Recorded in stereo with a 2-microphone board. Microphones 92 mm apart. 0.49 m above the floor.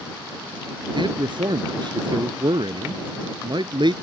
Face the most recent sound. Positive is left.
turn(degrees=-60)  # may be behind; listen again after turning